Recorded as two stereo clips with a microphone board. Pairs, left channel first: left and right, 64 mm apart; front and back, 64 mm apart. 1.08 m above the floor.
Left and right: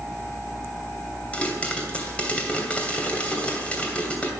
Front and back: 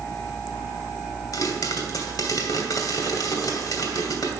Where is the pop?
20° left, 2.5 m.